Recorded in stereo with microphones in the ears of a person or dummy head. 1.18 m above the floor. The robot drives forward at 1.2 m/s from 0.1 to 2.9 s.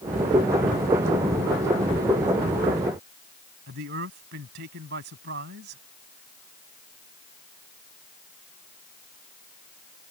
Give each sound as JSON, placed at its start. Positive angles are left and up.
{"t": 3.7, "sound": "a man speaking", "side_deg": -55}